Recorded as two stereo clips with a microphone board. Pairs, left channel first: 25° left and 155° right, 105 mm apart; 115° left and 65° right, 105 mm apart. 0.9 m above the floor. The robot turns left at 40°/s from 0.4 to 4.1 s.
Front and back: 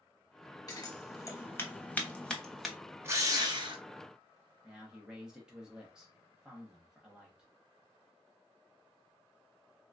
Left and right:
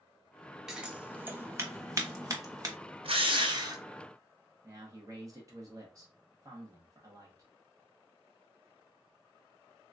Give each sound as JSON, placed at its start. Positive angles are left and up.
{"t": 0.7, "sound": "scissors", "azimuth_deg": 10, "distance_m": 0.8}
{"t": 3.0, "sound": "a drill", "azimuth_deg": -90, "distance_m": 0.6}
{"t": 4.6, "sound": "a man speaking", "azimuth_deg": -80, "distance_m": 0.9}